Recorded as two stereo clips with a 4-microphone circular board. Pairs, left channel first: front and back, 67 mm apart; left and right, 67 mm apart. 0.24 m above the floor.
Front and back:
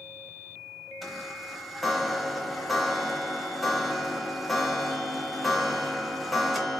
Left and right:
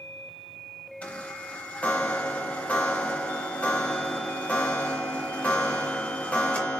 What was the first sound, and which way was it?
A chime, 90° left.